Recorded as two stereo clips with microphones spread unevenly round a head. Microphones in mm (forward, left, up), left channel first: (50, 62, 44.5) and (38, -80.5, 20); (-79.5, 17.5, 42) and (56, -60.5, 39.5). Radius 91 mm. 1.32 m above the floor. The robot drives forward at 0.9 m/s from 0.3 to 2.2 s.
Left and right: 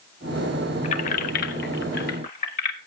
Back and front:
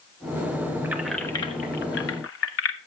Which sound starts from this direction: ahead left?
Keys jangling, at 0.8 s.